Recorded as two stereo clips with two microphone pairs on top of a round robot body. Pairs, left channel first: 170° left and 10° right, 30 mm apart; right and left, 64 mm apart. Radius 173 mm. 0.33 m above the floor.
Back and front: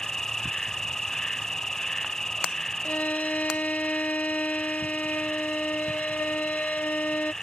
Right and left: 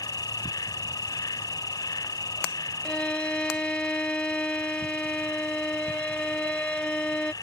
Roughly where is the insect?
Behind right.